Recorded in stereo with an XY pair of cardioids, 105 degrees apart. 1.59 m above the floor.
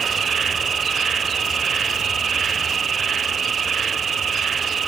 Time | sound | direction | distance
0.0 | an insect | 45° right | ?